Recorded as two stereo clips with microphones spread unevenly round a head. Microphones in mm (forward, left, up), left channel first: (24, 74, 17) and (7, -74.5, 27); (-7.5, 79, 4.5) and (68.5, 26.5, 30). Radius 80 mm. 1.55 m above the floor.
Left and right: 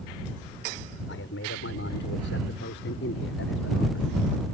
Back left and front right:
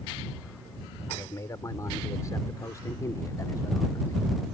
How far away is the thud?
I don't hear a thud.